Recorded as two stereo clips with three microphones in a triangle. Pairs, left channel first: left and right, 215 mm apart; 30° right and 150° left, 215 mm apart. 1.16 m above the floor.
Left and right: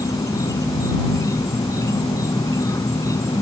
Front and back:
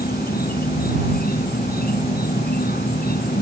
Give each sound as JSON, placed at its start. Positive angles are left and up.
{"t": 0.0, "sound": "an insect", "azimuth_deg": 15}